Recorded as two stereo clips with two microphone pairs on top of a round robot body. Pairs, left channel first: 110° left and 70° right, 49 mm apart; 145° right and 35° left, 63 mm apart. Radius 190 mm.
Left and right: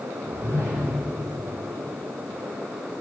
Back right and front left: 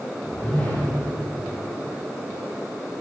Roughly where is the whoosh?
Right.